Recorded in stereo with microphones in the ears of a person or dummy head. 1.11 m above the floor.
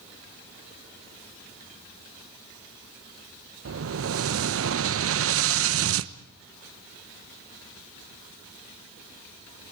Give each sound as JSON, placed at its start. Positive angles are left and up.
{"t": 3.6, "sound": "an explosion", "side_deg": -65, "distance_m": 0.6}